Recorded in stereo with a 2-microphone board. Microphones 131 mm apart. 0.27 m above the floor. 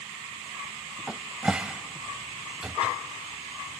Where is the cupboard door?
5° right (ahead or behind), 0.5 m.